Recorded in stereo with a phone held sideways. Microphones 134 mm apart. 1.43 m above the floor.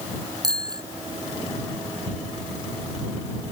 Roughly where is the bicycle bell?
Right.